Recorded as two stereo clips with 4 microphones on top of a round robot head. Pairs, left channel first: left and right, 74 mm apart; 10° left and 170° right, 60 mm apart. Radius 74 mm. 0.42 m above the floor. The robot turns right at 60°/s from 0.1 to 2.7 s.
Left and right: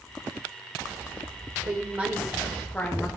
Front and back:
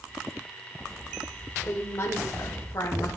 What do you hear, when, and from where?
1.6 s a woman speaking: 45° right, 1.7 m; by 3.1 s 20° left, 1.7 m